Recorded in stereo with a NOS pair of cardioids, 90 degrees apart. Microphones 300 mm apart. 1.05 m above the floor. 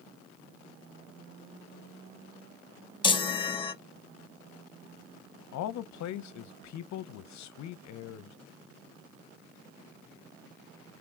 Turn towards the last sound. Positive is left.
turn(degrees=70)